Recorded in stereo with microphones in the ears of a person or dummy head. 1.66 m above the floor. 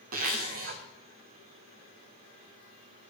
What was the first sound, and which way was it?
A zipper, 50° right (ahead or behind).